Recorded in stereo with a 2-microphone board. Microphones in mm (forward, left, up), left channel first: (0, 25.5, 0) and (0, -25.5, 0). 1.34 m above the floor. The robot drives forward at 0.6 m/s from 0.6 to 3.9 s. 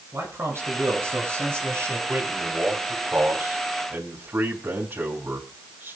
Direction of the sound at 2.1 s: 45° right (ahead or behind).